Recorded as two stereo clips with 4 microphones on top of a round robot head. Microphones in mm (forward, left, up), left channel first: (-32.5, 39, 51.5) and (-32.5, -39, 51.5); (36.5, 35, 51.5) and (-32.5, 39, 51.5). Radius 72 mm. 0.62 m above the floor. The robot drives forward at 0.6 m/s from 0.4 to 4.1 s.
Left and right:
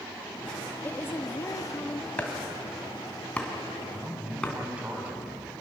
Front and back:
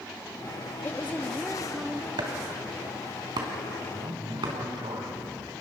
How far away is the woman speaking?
About 1.1 m.